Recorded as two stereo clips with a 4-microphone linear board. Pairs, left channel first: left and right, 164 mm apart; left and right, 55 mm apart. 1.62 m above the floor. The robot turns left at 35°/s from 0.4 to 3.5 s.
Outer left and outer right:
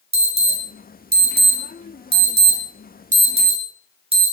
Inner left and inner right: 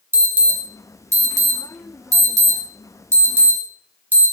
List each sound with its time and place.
0.1 s an alarm: 40° right (ahead or behind), 2 m; by 4.3 s 35° right (ahead or behind), 2 m